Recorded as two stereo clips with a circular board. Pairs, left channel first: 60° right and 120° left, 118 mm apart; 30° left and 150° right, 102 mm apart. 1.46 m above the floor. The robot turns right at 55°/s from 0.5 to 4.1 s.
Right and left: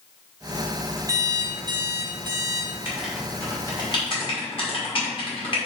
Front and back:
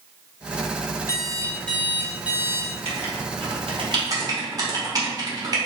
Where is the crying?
I don't hear crying.